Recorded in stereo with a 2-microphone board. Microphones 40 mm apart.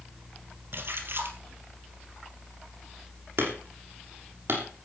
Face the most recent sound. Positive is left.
turn(degrees=-65)  # may be behind; listen again after turning